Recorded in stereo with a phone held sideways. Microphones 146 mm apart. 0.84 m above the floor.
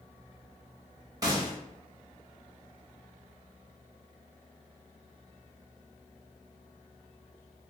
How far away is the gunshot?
About 0.8 m.